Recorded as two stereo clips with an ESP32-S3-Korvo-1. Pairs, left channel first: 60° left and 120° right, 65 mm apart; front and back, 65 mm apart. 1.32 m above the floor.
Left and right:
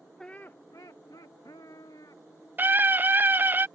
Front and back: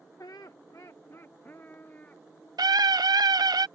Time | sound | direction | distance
0.2 | laughter | 20° right | ?
2.6 | a scream | straight behind | ?